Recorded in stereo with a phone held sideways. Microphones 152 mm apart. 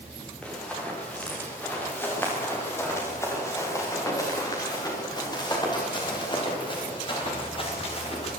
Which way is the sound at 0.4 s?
5° left (ahead or behind).